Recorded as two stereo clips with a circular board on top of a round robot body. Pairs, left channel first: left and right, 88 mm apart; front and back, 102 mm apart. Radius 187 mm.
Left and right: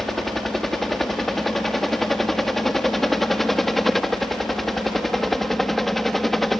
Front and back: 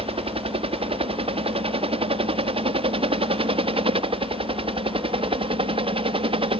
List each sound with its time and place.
0.0 s a helicopter: 175° left; by 6.6 s straight behind